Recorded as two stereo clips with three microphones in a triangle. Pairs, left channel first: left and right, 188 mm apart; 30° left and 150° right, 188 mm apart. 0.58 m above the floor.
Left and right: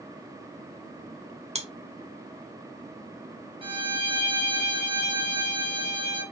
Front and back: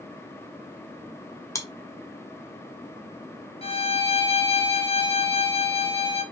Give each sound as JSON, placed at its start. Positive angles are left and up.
{"t": 1.6, "sound": "chewing", "azimuth_deg": -40, "distance_m": 1.1}
{"t": 3.6, "sound": "a violin", "azimuth_deg": -30, "distance_m": 1.5}